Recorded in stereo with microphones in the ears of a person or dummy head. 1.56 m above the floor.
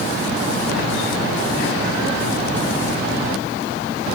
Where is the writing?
No writing in this recording.